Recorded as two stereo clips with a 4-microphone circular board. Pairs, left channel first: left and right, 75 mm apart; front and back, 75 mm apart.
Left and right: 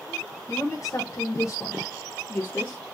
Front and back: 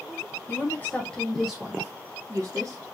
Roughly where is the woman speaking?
Ahead left.